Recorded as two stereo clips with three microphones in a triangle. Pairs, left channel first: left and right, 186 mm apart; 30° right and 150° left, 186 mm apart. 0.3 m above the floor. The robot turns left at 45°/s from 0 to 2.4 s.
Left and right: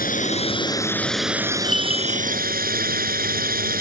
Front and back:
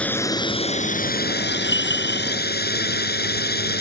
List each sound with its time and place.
0.0 s a drone: 55° left; by 3.8 s 55° right
1.6 s a bell: 35° right; by 2.3 s 65° right